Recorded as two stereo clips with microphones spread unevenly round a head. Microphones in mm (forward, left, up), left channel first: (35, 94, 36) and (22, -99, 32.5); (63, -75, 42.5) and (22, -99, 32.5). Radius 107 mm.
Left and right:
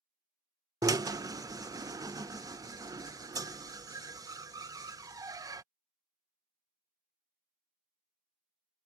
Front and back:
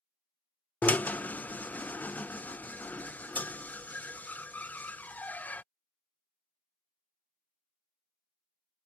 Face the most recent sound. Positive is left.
turn(degrees=-25)